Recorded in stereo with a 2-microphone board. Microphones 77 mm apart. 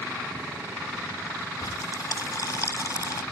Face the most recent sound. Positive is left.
turn(degrees=50)  # may be behind; listen again after turning